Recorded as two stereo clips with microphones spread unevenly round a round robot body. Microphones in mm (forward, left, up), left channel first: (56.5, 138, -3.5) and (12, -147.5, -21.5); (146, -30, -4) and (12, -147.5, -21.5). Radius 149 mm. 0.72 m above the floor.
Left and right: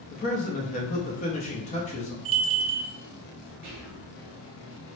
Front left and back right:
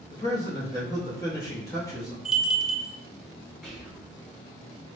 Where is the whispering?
50° right, 1.7 m.